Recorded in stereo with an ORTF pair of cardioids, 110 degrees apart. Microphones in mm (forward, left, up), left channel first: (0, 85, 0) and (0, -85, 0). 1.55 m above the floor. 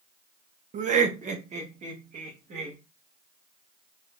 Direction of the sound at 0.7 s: 45° right.